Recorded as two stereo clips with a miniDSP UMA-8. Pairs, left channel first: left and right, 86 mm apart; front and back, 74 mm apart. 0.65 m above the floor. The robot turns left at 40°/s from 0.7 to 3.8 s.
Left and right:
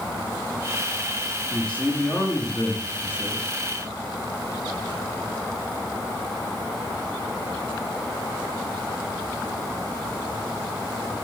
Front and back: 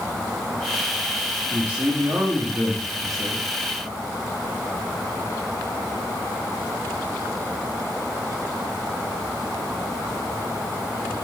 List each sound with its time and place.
1.5 s a man speaking: 165° left, 1.1 m; by 3.5 s 85° left, 1.1 m